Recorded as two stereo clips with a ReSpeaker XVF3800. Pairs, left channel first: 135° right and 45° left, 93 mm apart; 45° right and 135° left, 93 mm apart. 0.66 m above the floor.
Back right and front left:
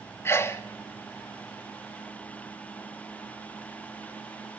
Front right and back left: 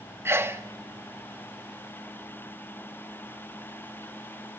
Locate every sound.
0.2 s a sneeze: straight behind, 0.7 m